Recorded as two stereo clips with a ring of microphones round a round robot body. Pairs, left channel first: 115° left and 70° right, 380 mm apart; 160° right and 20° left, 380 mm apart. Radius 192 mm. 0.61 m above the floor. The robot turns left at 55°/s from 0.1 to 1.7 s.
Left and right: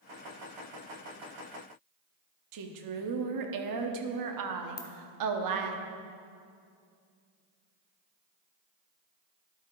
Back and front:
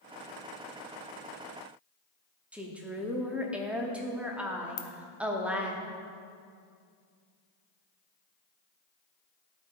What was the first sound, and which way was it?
A woman speaking, 65° right.